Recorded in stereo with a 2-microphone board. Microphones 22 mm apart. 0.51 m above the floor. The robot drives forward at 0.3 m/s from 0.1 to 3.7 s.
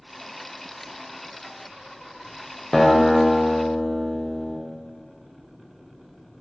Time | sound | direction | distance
2.7 | a guitar | 20° left (ahead or behind) | 0.6 m